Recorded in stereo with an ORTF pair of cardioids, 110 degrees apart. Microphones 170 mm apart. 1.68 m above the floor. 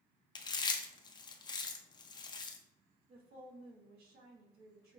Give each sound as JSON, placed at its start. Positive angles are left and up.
{"t": 0.3, "sound": "chewing", "azimuth_deg": 25, "distance_m": 0.6}
{"t": 3.1, "sound": "a woman speaking", "azimuth_deg": -65, "distance_m": 1.4}